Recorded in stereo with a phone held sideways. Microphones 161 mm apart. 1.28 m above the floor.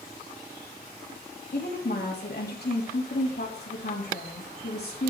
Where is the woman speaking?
70° left (ahead or behind), 3 m.